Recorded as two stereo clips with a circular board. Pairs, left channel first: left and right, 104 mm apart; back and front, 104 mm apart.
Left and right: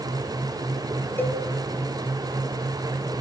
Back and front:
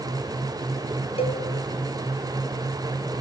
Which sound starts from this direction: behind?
A cowbell, at 1.2 s.